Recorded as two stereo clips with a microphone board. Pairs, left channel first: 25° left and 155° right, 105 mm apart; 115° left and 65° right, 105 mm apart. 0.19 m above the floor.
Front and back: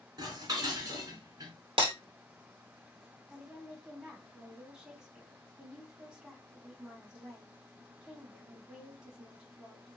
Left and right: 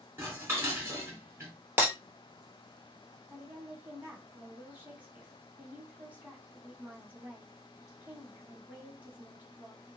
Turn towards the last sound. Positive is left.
turn(degrees=-95)